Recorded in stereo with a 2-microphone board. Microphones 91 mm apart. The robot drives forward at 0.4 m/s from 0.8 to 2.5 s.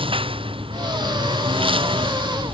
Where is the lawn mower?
75° right (ahead or behind); by 2.5 s 70° right (ahead or behind).